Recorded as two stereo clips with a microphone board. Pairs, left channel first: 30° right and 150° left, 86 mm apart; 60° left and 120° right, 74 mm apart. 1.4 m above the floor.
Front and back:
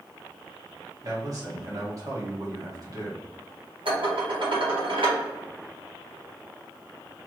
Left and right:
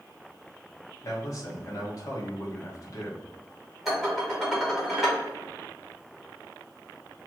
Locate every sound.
1.0 s a man speaking: 105° left, 1.4 m
3.9 s dishes clattering: 150° left, 1.6 m